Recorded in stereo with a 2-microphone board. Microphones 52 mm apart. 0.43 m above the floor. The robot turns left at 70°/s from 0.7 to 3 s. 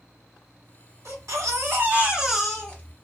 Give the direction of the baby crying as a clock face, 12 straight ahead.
3 o'clock.